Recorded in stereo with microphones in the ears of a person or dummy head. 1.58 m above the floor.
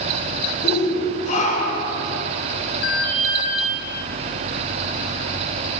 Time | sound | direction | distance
0.6 | a shout | 40° left (ahead or behind) | 7.5 m
2.8 | an alarm | 75° left (ahead or behind) | 7 m